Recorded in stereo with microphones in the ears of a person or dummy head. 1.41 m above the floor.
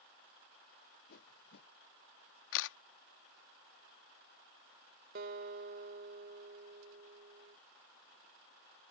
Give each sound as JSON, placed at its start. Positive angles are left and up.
{"t": 1.1, "sound": "a whoosh", "side_deg": 55}
{"t": 2.5, "sound": "a camera shutter", "side_deg": 70}
{"t": 5.2, "sound": "a guitar", "side_deg": -50}